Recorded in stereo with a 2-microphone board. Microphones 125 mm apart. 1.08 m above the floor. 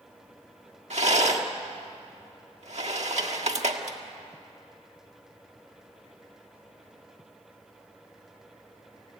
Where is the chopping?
I don't hear chopping.